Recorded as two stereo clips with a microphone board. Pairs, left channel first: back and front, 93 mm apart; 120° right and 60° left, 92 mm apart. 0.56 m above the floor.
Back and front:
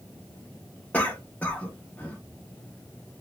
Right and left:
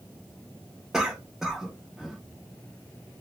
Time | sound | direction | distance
0.9 | a cough | 135° left | 0.8 m